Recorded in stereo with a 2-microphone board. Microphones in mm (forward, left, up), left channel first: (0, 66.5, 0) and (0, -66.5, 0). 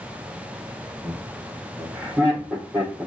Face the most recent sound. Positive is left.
turn(degrees=-10)  # may be behind; listen again after turning